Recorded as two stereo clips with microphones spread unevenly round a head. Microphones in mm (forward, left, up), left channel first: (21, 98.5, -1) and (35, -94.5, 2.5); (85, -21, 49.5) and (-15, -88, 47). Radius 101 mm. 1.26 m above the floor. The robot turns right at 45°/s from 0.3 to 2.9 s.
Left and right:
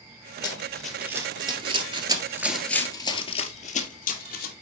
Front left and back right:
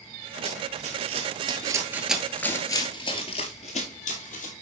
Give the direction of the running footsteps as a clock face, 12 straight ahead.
7 o'clock.